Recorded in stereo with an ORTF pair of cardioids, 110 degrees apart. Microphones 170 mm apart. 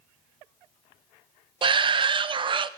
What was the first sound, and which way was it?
A shout, 30° right.